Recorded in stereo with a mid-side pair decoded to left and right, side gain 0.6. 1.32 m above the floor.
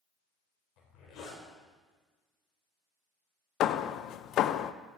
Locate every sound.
0.8 s a zipper: 60° left, 4.5 m
3.6 s hammering: 60° left, 0.6 m